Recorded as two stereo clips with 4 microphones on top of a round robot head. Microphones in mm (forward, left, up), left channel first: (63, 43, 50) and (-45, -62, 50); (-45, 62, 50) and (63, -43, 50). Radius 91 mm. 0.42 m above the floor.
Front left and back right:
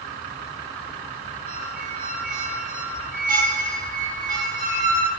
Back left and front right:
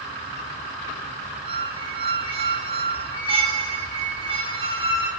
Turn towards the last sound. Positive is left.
turn(degrees=-100)